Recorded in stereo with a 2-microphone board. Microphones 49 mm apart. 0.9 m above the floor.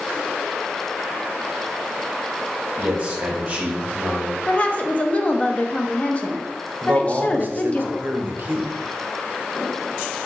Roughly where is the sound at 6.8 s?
Right.